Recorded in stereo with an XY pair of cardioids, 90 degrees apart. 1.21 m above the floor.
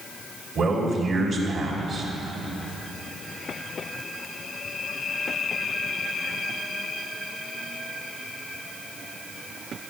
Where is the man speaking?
50° right, 3 m.